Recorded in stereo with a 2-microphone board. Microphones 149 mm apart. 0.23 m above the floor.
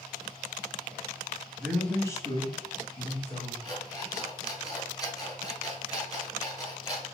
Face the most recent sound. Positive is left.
turn(degrees=25)  # may be behind; listen again after turning